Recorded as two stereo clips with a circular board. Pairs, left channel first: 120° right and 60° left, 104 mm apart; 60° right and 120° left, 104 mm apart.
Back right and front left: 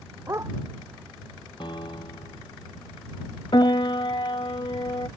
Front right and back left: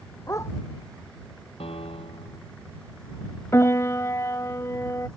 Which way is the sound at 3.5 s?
115° right.